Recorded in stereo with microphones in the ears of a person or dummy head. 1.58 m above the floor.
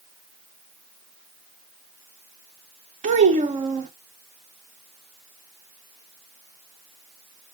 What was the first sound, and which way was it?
A child speaking, 40° right (ahead or behind).